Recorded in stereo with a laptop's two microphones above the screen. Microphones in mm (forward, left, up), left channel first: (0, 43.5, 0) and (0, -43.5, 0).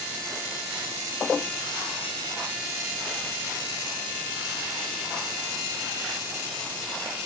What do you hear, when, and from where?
Only background noise.